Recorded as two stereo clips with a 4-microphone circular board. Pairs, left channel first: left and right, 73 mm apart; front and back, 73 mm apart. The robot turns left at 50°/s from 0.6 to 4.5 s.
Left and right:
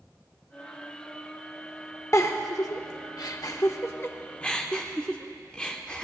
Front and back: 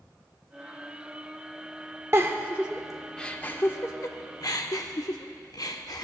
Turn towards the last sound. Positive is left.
turn(degrees=15)